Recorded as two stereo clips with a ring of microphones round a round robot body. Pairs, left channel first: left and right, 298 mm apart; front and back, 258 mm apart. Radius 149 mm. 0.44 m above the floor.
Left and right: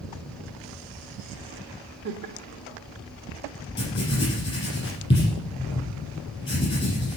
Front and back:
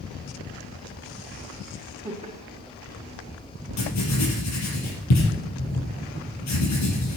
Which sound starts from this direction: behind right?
Laughter, at 2.0 s.